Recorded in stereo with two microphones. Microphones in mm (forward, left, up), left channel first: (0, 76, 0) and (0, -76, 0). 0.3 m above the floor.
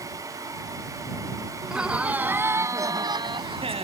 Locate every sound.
1.6 s laughter: 5° right (ahead or behind); by 3.9 s 45° right (ahead or behind)